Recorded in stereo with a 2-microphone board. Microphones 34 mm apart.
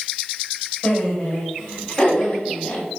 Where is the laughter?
30° left (ahead or behind), 5 m; by 2.9 s 15° left (ahead or behind), 6.5 m.